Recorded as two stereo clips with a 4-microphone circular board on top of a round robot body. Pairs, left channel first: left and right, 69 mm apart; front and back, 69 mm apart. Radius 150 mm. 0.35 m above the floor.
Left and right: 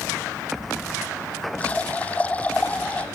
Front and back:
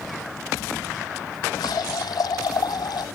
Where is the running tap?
20° left.